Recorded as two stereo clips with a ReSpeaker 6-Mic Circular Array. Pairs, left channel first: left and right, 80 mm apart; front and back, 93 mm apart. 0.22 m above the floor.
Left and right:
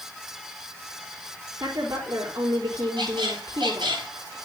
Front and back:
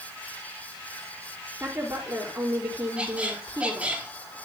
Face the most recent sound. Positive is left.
turn(degrees=-105)